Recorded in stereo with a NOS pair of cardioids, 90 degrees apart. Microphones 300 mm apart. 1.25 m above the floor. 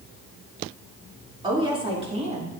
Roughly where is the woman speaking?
Ahead.